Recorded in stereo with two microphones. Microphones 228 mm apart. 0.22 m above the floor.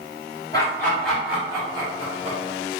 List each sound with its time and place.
0.5 s laughter: 15° left (ahead or behind), 1.2 m; by 2.4 s 35° right (ahead or behind), 1.4 m